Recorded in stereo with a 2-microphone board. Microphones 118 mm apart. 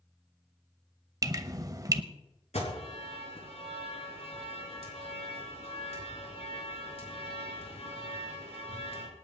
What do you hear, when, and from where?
1.2 s dripping: 30° right (ahead or behind), 0.8 m
2.5 s an alarm: 70° left (ahead or behind), 5 m